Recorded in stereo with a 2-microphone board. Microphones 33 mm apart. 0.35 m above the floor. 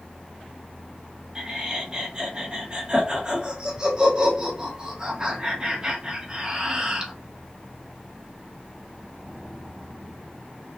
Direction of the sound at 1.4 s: 20° right (ahead or behind).